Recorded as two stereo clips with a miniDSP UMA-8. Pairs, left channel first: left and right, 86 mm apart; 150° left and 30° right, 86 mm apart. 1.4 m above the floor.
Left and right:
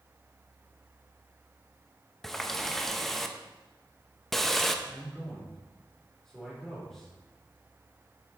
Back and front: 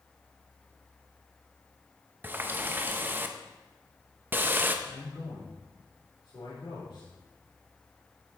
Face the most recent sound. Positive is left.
turn(degrees=175)